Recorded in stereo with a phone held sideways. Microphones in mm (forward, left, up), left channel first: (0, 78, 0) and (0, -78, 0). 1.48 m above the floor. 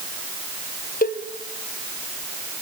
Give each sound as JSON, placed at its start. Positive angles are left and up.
{"t": 1.0, "sound": "a cowbell", "side_deg": 60, "distance_m": 1.2}